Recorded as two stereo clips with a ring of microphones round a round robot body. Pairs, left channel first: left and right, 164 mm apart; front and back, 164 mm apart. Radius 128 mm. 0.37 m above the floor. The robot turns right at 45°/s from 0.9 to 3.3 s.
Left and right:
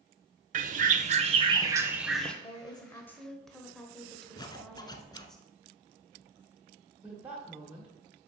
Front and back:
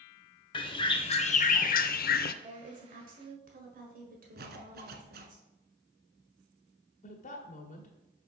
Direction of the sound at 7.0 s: 10° right.